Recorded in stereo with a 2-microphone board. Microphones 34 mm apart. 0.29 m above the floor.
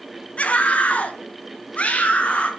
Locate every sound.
0.4 s a scream: 45° left (ahead or behind), 1.7 m; by 2.5 s 40° left (ahead or behind), 3.5 m